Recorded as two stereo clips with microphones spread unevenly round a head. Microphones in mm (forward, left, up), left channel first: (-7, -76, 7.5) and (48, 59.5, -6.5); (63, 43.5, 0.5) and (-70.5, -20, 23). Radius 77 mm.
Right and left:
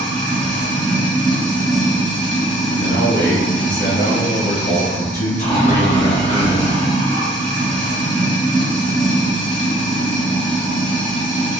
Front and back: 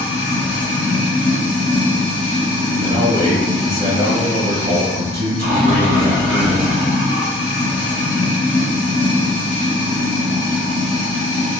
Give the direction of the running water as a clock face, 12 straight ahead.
5 o'clock.